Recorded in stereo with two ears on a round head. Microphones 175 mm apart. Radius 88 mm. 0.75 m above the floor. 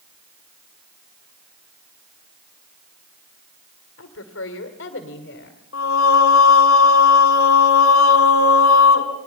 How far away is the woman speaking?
About 2.5 m.